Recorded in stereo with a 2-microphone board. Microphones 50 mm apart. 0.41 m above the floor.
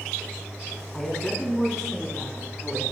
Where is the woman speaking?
10° left (ahead or behind), 4.5 m; by 2.8 s 5° right (ahead or behind), 5 m.